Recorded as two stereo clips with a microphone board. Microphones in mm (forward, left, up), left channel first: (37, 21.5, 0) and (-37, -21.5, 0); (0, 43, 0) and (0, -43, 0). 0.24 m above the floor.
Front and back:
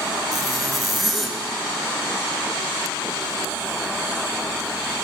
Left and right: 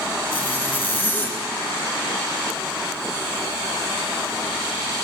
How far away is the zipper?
About 0.6 m.